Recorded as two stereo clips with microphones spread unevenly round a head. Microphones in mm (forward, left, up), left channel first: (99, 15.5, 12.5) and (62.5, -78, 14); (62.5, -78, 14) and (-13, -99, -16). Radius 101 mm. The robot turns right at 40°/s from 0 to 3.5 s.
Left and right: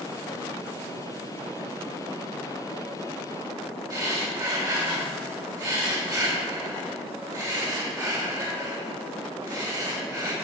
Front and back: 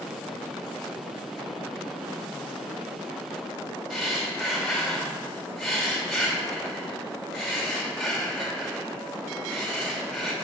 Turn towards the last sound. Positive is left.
turn(degrees=-60)